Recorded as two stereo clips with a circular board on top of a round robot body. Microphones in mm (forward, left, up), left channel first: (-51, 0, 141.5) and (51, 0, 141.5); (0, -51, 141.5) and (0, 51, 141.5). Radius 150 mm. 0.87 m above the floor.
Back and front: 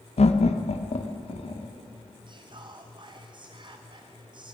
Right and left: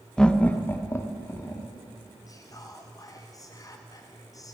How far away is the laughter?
About 1.1 m.